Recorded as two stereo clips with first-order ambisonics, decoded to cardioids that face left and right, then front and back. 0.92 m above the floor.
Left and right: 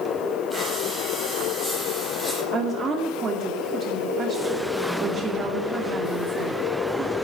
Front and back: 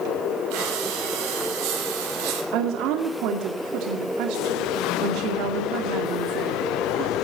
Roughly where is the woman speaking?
Behind.